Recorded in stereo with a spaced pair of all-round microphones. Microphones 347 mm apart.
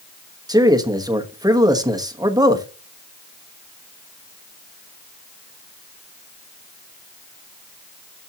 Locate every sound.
0.5 s a man speaking: 10° right (ahead or behind), 1.1 m